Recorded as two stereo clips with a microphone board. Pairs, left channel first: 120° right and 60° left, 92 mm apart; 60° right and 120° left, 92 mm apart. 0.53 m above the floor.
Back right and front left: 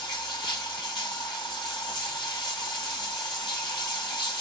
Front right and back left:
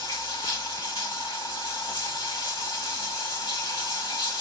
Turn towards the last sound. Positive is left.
turn(degrees=-90)